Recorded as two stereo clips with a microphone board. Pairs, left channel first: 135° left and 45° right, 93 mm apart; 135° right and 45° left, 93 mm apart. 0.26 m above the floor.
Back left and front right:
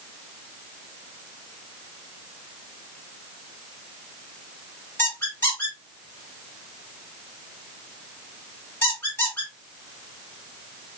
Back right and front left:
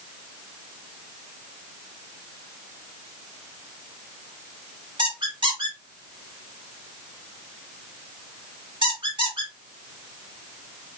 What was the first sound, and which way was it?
A squeak, 75° left.